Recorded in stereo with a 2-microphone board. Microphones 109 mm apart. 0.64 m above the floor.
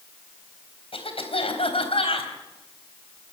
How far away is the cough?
About 4 m.